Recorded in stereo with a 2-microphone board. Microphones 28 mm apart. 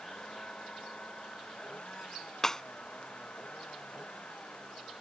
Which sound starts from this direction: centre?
Breaking glass, at 2.4 s.